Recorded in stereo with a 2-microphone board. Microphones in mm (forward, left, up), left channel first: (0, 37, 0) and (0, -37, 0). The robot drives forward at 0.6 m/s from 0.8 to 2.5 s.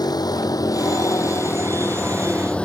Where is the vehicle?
70° left (ahead or behind); by 2.6 s 15° left (ahead or behind).